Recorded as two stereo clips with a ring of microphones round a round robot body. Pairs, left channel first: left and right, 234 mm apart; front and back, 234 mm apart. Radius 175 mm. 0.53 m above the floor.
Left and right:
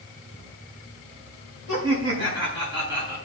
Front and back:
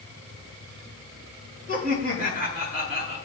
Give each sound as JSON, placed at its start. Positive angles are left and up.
{"t": 1.7, "sound": "laughter", "azimuth_deg": -115, "distance_m": 4.5}